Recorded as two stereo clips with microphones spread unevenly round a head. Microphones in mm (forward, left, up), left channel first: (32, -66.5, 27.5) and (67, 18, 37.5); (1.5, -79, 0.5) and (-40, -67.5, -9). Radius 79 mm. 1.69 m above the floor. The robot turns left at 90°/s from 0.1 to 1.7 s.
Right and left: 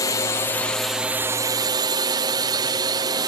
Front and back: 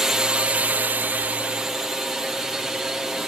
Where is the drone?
130° right; by 3.3 s 90° left.